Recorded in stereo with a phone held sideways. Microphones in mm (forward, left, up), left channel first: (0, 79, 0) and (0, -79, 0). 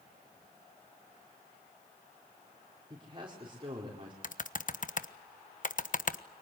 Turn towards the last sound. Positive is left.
turn(degrees=55)  # may be behind; listen again after turning